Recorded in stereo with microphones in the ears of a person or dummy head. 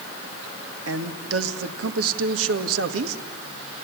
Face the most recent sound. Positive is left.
turn(degrees=-80)